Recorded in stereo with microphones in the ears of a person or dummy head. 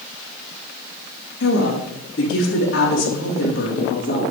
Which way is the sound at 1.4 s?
75° left (ahead or behind).